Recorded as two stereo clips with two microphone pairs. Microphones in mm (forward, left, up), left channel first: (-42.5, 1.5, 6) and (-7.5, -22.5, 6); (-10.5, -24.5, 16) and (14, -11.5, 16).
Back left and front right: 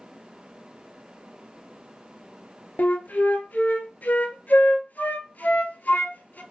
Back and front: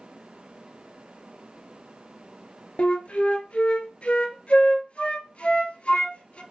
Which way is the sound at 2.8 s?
175° right.